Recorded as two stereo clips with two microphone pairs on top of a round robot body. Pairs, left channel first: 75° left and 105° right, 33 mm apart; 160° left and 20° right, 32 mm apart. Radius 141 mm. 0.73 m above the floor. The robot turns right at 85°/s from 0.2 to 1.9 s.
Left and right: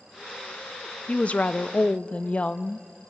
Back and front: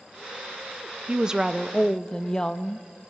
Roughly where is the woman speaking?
Ahead left.